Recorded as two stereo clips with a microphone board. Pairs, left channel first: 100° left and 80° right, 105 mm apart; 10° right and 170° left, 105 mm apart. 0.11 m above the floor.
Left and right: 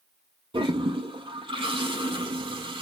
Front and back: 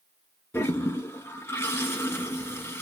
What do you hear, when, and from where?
0.5 s a toilet flushing: 75° right, 2.5 m